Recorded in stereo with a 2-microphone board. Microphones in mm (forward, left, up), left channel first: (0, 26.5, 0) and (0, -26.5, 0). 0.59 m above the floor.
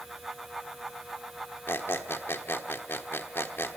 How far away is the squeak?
About 1.2 m.